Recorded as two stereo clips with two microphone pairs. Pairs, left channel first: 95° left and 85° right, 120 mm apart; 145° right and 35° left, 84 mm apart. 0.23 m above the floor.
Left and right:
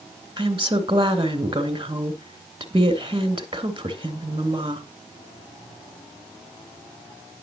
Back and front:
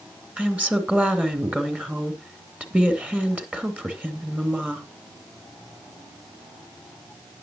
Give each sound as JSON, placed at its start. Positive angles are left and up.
{"t": 0.4, "sound": "a woman speaking", "azimuth_deg": -45, "distance_m": 2.5}